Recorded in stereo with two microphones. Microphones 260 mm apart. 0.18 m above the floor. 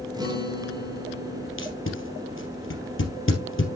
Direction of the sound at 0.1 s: 15° right (ahead or behind).